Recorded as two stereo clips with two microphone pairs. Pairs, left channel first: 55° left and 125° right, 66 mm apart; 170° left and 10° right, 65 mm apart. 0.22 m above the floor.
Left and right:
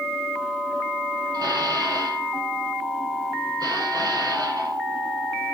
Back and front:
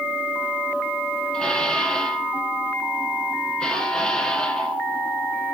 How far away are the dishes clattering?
About 4 m.